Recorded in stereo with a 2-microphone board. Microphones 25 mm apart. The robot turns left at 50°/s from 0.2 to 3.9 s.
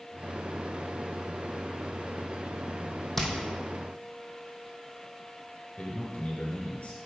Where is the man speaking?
50° left (ahead or behind), 2 m.